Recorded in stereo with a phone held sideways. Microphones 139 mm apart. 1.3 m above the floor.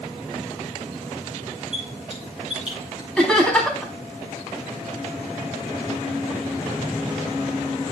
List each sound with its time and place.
1.7 s a squeak: 5° right (ahead or behind), 8.5 m
3.2 s laughter: 5° left (ahead or behind), 3.5 m